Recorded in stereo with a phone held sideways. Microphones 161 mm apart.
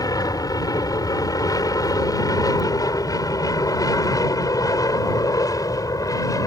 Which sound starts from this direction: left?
An aircraft, at 0.0 s.